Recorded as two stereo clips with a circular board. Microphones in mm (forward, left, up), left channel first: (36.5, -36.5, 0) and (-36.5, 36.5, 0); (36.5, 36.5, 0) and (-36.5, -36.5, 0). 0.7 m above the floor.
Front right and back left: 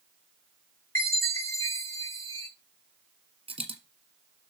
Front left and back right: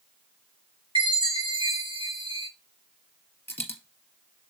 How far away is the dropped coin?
About 1.8 m.